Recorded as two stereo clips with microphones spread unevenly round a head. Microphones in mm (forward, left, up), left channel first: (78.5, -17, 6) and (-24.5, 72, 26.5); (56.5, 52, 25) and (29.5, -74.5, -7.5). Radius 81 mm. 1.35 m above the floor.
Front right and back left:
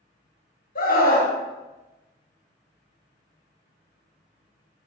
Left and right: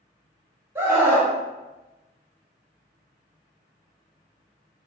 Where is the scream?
35° right, 1.4 m.